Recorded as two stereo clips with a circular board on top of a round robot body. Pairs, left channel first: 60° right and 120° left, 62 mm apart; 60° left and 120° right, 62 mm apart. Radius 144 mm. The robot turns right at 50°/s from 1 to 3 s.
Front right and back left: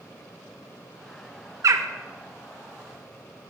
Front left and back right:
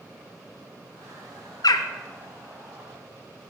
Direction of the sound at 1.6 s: 80° left.